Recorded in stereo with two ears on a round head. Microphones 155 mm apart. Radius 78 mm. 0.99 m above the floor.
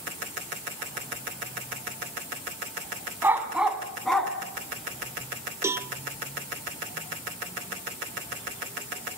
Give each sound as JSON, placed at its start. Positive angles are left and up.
{"t": 3.2, "sound": "a dog barking", "side_deg": -15, "distance_m": 2.5}
{"t": 5.6, "sound": "a cowbell", "side_deg": -15, "distance_m": 0.8}